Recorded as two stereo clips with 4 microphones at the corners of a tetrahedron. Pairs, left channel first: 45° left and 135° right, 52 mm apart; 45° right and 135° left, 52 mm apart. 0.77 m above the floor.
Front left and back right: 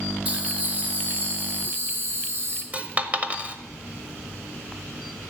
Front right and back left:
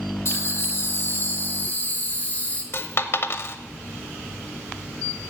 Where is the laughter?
75° right, 2.5 m; by 2.6 s 105° right, 2.5 m.